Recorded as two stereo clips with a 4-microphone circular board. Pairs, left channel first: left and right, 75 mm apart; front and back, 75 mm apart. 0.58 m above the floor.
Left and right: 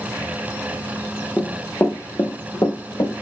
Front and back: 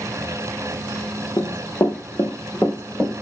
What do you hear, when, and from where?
1.4 s running footsteps: 20° left, 0.9 m; by 3.1 s 80° left, 1.1 m